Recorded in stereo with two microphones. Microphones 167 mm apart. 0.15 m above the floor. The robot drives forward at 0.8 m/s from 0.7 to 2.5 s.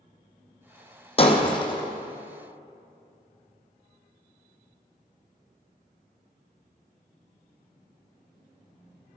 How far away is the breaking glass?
About 1.3 m.